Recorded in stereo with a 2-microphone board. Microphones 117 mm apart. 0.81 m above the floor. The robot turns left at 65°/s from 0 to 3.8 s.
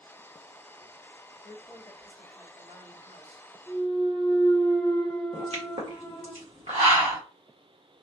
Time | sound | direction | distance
1.4 | a woman speaking | 55° left | 2 m
3.7 | a clunk | 20° left (ahead or behind) | 1.1 m
5.3 | a pop | 65° right (ahead or behind) | 1.3 m